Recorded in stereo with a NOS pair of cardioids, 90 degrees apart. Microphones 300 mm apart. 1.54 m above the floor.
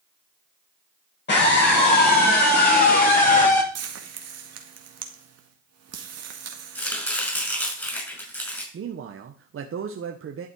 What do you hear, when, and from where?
1.3 s a scream: 35° left, 8.5 m; by 3.6 s 25° left, 7.5 m
3.8 s frying: 55° right, 2 m
6.8 s chopping: 5° left, 6 m
8.7 s a man speaking: 45° right, 1.3 m